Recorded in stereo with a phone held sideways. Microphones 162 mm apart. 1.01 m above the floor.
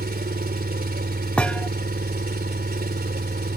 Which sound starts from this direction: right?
An engine running, at 0.0 s.